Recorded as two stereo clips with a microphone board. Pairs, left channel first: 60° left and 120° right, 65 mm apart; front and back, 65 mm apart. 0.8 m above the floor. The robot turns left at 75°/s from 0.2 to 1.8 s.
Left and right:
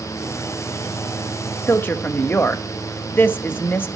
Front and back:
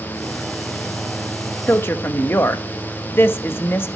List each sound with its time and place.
1.7 s a woman speaking: 35° left, 1.1 m; by 3.9 s 25° left, 1.1 m